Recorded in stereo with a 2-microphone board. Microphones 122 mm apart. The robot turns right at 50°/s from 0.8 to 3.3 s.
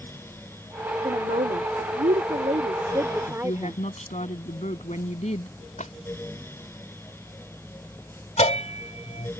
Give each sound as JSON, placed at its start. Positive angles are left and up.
{"t": 1.0, "sound": "a woman speaking", "azimuth_deg": -130}
{"t": 3.3, "sound": "a woman speaking", "side_deg": 60}
{"t": 5.8, "sound": "a splash", "side_deg": 75}
{"t": 8.4, "sound": "a bell", "side_deg": 60}